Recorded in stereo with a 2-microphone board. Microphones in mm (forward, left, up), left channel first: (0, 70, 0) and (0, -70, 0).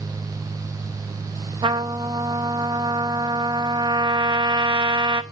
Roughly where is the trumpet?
Right.